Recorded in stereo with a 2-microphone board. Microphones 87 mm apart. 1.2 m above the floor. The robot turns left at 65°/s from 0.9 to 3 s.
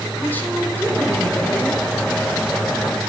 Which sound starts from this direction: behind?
A woman speaking, at 0.2 s.